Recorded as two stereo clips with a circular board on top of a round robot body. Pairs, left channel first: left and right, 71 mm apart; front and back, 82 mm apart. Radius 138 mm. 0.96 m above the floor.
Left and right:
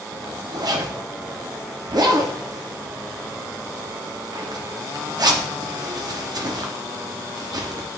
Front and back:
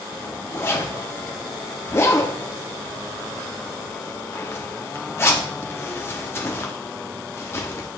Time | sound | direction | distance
0.1 | a zipper | 60° right | 1.2 m